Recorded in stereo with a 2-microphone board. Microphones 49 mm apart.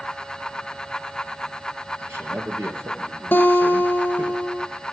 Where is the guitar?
45° left (ahead or behind), 1.2 m.